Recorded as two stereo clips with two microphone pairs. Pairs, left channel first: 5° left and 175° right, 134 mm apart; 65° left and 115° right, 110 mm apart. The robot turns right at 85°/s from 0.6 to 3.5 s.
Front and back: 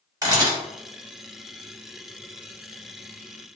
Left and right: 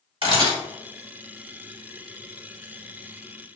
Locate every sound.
0.2 s a camera shutter: 120° right, 1.8 m